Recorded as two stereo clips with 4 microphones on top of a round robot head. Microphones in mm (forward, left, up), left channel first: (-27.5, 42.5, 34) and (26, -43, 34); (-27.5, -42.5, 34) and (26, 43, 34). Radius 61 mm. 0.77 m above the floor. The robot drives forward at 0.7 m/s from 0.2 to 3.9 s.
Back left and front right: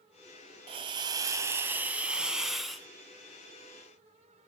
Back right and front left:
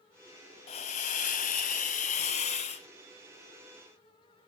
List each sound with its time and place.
0.7 s a hiss: 95° right, 1.1 m; by 2.9 s 150° right, 1.9 m